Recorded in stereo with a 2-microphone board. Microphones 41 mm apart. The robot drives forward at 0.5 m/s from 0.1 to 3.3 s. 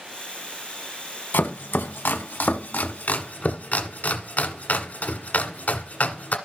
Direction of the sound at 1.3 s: 65° left (ahead or behind).